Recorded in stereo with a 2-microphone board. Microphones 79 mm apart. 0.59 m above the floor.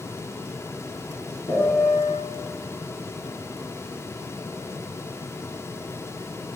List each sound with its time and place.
1.5 s a piano: 55° left (ahead or behind), 1.2 m